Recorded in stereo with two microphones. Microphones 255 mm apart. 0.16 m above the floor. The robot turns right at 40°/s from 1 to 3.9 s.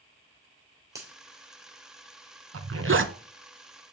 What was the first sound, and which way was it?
A finger snap, 10° right (ahead or behind).